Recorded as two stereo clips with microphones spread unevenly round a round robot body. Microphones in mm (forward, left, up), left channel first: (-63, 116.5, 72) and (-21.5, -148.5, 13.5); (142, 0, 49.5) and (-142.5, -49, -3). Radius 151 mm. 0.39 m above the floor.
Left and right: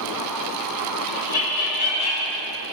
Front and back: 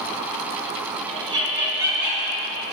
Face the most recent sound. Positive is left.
turn(degrees=105)